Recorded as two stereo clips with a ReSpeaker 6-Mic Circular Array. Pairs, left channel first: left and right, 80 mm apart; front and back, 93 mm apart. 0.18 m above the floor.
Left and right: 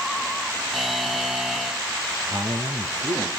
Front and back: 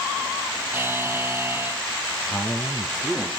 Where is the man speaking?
85° right, 3.5 m.